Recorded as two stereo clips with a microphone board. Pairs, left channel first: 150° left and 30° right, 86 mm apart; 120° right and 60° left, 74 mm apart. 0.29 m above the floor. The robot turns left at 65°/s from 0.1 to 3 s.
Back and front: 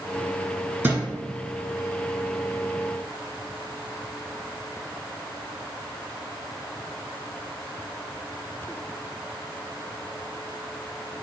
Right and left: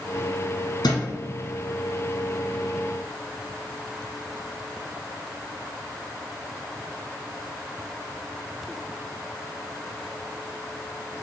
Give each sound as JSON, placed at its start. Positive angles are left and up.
{"t": 0.8, "sound": "a thud", "azimuth_deg": -100, "distance_m": 1.5}